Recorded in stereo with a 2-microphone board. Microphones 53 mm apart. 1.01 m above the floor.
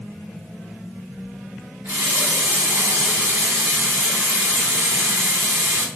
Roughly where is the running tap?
Right.